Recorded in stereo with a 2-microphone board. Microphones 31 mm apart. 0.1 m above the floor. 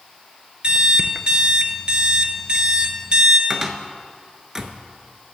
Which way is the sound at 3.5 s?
20° right (ahead or behind).